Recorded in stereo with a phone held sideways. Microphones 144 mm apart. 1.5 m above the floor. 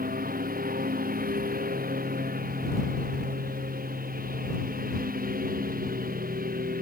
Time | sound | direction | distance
0.0 | a lawn mower | 85° right | ?